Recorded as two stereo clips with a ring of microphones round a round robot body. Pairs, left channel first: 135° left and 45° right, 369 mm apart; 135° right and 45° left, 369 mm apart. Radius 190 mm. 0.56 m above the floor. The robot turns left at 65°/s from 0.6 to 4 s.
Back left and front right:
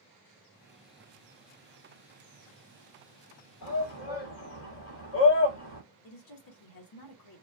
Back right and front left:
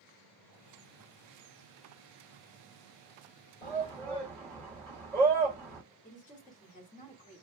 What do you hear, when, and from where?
3.6 s a shout: 165° left, 2.5 m; by 5.8 s 140° left, 2.5 m
6.0 s a woman speaking: 155° left, 1.2 m